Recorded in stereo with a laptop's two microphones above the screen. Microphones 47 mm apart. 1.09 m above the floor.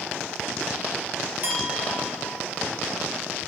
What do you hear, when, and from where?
1.4 s a clink: 35° right (ahead or behind), 3 m